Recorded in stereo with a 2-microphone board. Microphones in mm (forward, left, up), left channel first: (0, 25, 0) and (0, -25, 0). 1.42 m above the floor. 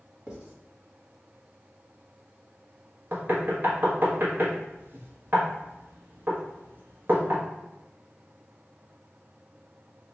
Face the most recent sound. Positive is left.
turn(degrees=-45)  # may be behind; listen again after turning